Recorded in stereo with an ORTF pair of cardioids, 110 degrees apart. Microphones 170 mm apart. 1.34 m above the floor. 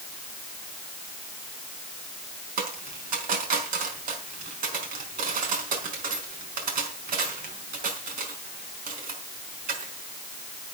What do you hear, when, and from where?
2.6 s a dropped coin: 60° right, 4.5 m